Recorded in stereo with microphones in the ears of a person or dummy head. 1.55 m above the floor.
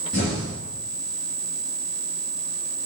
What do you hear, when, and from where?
0.1 s an explosion: 35° left (ahead or behind), 1.1 m